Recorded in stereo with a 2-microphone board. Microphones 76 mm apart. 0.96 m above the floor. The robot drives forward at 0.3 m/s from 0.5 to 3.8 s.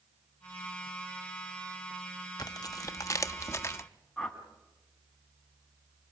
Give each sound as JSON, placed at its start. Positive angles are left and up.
{"t": 2.4, "sound": "tearing paper", "side_deg": 60, "distance_m": 0.6}
{"t": 4.2, "sound": "a whoosh", "side_deg": 5, "distance_m": 2.5}